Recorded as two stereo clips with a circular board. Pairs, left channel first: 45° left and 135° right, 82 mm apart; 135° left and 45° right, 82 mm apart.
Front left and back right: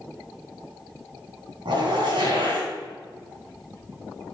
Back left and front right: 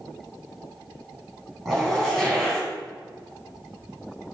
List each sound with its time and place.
1.6 s a zipper: 140° right, 3 m